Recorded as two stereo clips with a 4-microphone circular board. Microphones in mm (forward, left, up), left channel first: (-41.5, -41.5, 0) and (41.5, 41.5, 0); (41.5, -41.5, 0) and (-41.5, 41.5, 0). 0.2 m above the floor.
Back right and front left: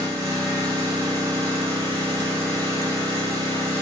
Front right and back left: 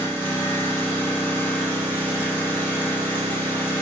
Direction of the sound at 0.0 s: 15° left.